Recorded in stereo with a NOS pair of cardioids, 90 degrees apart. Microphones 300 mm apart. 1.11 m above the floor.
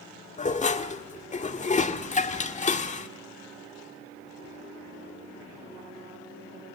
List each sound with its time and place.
0.4 s dishes clattering: 25° left, 1.7 m